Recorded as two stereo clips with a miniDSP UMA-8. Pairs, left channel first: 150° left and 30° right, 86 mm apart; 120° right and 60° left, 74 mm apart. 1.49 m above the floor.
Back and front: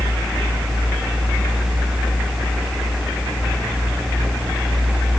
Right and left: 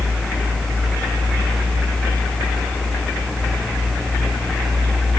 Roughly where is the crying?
No crying in this recording.